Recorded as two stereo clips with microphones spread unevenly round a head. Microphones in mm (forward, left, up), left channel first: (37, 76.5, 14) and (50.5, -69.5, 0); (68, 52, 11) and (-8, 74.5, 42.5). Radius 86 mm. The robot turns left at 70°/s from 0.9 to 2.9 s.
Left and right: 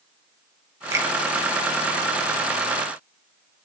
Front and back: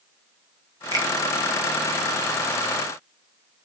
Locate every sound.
0.9 s a finger snap: 155° right, 1.2 m; by 1.1 s 170° right, 1.2 m